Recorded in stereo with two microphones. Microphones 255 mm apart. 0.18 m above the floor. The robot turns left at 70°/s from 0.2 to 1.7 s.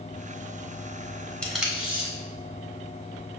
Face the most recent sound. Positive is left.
turn(degrees=-5)  # may be behind; listen again after turning